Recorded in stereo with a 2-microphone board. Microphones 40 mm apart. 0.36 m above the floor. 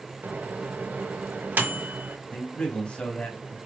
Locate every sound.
0.2 s a microwave: 50° right (ahead or behind), 1.2 m
2.3 s a man speaking: 25° left (ahead or behind), 2.5 m